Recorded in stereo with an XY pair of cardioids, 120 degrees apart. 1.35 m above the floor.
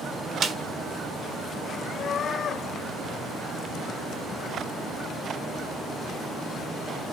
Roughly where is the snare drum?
Ahead right.